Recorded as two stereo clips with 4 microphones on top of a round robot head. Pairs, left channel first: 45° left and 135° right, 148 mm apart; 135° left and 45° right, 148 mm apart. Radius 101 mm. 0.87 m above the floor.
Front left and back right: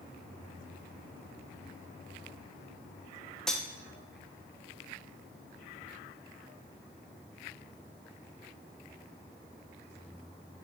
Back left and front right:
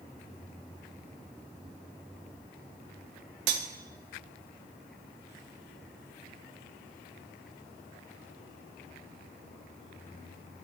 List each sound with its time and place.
3.5 s cutlery clinking: 45° right, 0.5 m